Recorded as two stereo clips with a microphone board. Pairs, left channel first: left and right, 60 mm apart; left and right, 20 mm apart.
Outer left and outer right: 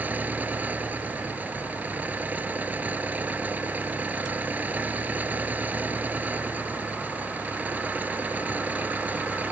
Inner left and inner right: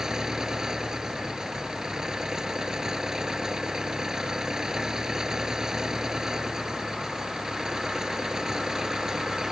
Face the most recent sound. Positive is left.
turn(degrees=-25)  # may be behind; listen again after turning